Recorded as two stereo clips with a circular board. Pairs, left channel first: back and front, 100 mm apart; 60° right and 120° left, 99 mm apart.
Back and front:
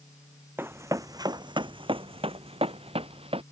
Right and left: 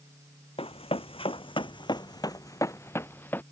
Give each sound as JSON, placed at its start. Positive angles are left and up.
{"t": 0.6, "sound": "running footsteps", "azimuth_deg": -65}